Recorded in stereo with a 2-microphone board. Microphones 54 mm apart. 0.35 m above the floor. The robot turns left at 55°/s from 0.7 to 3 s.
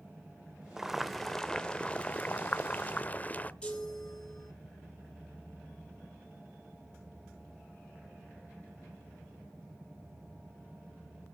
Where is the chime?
20° left (ahead or behind), 4.5 m.